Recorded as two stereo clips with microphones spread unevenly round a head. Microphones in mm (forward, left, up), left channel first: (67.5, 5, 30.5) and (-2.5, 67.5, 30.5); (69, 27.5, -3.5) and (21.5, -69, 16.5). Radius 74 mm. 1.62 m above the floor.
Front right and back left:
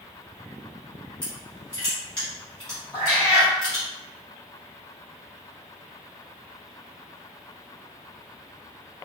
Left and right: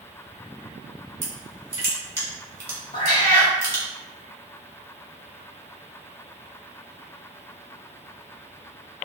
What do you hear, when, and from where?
1.2 s crushing: 115° right, 1.0 m
2.9 s a cat meowing: 65° left, 1.4 m